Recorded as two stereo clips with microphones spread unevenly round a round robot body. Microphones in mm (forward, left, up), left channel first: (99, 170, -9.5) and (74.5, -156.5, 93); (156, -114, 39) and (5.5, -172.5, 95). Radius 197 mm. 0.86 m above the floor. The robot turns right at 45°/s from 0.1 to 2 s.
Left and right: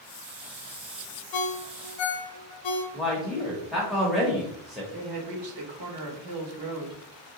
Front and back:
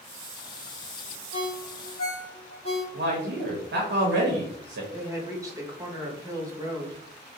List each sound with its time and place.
1.3 s a ringtone: 60° left, 0.7 m; by 2.8 s 90° left, 0.7 m
2.9 s a man speaking: 170° left, 0.6 m
4.9 s a woman speaking: 75° right, 1.4 m